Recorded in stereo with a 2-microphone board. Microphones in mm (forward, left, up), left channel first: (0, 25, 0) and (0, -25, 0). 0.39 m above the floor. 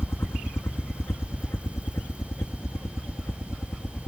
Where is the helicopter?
55° left (ahead or behind); by 4.1 s 70° left (ahead or behind).